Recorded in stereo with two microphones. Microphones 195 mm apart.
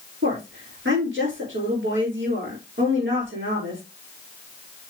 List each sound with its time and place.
0.2 s a woman speaking: 90° right, 6.5 m